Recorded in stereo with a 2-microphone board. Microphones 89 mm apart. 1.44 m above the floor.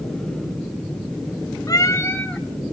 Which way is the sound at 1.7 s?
40° left (ahead or behind).